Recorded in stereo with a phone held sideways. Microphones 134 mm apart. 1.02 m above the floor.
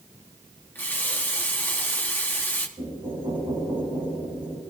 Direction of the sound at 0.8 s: 15° left (ahead or behind).